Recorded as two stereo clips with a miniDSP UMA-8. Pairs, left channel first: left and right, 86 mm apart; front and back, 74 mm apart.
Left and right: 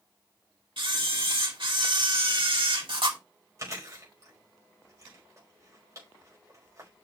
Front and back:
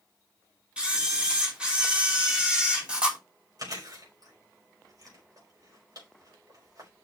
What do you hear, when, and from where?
0.8 s a camera shutter: 105° right, 3 m
3.6 s chewing: 140° right, 5 m